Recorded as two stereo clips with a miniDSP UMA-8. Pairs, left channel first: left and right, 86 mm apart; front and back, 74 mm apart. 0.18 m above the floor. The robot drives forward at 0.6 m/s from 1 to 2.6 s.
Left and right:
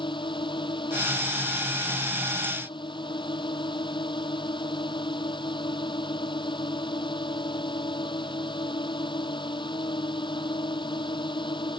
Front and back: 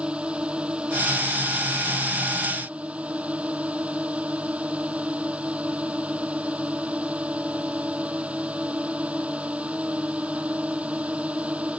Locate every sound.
0.0 s a drone: 105° left